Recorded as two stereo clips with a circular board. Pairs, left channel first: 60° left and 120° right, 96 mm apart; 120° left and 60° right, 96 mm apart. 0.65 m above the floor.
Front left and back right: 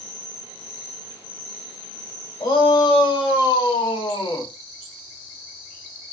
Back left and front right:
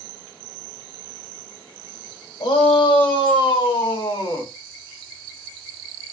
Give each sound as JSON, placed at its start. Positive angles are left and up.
{"t": 2.4, "sound": "a shout", "azimuth_deg": 95, "distance_m": 4.0}